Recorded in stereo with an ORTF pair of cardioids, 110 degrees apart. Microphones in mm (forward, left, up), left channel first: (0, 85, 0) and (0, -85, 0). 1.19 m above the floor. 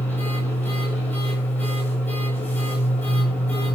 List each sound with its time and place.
0.0 s a machine running: 10° left, 9.5 m